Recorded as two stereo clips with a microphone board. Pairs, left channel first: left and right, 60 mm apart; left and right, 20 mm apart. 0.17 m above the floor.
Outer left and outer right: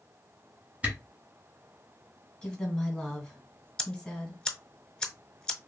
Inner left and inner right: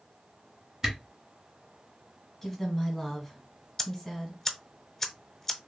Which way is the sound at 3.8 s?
15° left (ahead or behind).